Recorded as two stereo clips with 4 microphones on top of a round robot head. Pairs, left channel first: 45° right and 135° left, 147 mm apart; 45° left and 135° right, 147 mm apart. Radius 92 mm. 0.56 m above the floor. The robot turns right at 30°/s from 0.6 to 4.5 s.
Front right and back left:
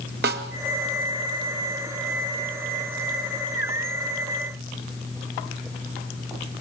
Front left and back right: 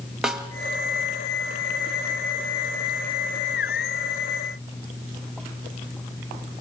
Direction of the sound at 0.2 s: 140° left.